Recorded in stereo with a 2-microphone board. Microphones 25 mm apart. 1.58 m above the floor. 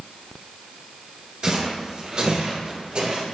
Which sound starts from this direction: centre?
Footsteps, at 1.4 s.